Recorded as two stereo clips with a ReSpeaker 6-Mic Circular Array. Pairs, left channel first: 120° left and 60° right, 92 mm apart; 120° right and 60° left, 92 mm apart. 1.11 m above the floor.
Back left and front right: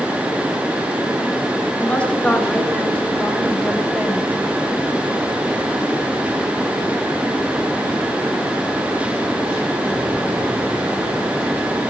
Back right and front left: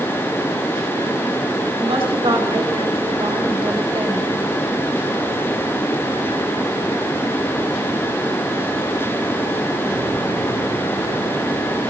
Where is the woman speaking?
40° left, 3.5 m; by 4.3 s 25° left, 4 m.